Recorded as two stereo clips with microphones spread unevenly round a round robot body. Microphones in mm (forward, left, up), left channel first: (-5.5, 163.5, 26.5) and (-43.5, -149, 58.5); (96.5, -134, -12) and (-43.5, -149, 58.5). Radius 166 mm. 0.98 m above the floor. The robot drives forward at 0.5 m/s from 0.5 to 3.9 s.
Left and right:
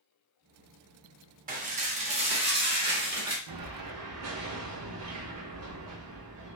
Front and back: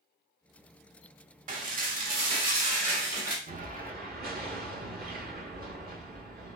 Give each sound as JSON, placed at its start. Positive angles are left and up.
{"t": 1.5, "sound": "dishes clattering", "azimuth_deg": -160, "distance_m": 0.8}
{"t": 3.5, "sound": "an explosion", "azimuth_deg": -130, "distance_m": 0.8}